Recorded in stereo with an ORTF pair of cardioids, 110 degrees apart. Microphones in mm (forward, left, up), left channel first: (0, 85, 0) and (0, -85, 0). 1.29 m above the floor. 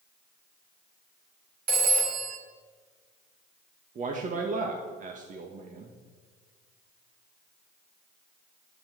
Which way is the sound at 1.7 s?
60° right.